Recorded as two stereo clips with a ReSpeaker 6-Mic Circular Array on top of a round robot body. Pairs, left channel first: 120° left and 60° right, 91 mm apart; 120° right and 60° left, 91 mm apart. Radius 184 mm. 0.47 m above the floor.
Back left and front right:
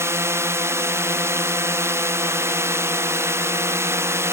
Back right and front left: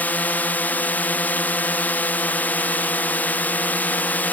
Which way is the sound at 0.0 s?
70° right.